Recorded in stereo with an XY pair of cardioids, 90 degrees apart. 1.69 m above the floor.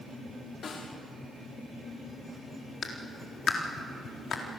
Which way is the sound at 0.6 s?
55° left.